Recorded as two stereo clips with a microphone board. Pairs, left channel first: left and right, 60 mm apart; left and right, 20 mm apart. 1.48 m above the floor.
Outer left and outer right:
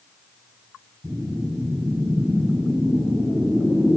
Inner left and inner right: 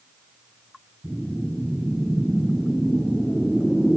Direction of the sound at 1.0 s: 20° right (ahead or behind).